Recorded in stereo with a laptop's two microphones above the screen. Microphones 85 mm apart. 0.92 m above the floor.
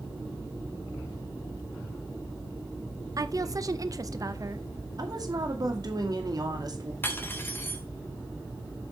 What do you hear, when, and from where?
3.2 s a woman speaking: 45° right (ahead or behind), 0.7 m
5.0 s a woman speaking: 50° right (ahead or behind), 2 m
7.0 s cutlery clinking: 25° left (ahead or behind), 1.5 m